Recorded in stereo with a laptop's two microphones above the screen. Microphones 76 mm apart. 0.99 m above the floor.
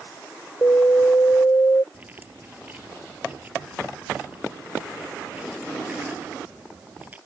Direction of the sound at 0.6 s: 45° left (ahead or behind).